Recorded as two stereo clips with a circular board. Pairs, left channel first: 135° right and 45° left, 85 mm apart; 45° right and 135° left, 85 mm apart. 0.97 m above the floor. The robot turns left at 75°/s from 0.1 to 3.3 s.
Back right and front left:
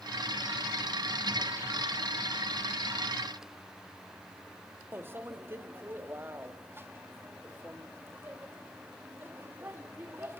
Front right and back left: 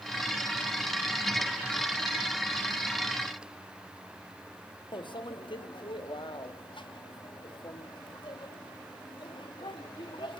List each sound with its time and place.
4.9 s a microwave: 20° right, 1.2 m